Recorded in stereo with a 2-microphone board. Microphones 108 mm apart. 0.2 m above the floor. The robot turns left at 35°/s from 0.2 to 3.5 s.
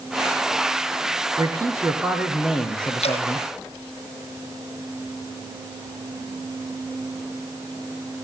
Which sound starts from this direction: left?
Dripping, at 3.0 s.